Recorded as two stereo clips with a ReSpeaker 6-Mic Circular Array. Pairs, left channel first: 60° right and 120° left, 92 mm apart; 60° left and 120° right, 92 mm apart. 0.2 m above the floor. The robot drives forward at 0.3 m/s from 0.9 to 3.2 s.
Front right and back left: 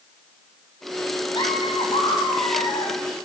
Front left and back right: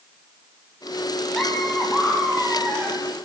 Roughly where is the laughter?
Ahead right.